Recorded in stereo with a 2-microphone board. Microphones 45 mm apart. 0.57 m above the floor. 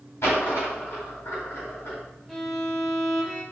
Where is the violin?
10° left (ahead or behind), 0.9 m.